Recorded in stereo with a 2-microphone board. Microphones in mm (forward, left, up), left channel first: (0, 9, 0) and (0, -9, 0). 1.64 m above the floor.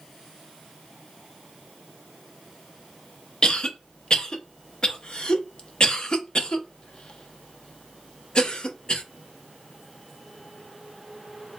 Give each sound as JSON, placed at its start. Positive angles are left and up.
{"t": 3.4, "sound": "a cough", "side_deg": 40, "distance_m": 0.6}